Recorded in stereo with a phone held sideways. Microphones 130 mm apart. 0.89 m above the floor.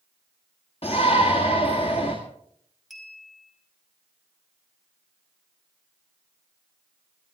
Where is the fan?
No fan in this recording.